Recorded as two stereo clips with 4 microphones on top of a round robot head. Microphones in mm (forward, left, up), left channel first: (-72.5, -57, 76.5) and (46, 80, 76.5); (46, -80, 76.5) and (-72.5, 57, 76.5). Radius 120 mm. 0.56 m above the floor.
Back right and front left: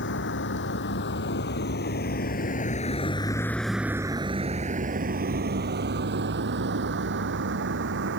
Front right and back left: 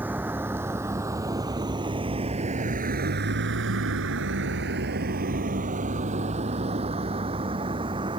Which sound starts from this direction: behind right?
A vehicle, at 0.0 s.